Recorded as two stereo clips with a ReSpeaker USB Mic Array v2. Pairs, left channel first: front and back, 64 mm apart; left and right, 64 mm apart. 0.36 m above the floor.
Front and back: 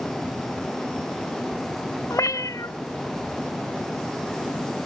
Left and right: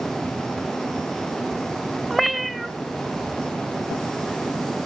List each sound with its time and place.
2.1 s a cat meowing: 5° right, 0.7 m